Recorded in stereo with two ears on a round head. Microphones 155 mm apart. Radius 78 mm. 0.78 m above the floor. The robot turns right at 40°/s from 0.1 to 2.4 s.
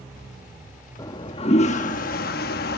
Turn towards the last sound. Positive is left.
turn(degrees=80)